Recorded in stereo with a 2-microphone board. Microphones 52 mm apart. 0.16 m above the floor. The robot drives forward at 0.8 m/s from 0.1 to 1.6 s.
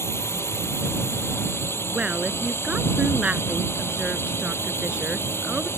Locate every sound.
0.0 s a drone: 60° left (ahead or behind); by 5.8 s 55° left (ahead or behind)
1.9 s a woman speaking: 25° right (ahead or behind)